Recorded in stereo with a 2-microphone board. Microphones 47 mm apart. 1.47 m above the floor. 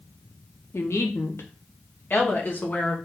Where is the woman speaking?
70° left (ahead or behind), 1.0 m; by 3.0 s 35° left (ahead or behind), 1.8 m.